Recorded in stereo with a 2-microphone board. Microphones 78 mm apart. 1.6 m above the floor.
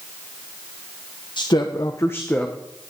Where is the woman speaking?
70° left (ahead or behind), 1.1 m; by 2.5 s 10° left (ahead or behind), 1.2 m.